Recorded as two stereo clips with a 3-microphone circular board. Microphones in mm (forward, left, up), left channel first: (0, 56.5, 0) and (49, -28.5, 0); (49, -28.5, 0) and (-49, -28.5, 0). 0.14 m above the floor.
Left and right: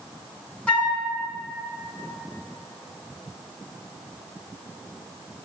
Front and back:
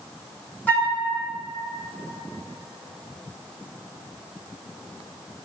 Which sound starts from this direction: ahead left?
A flute, at 0.7 s.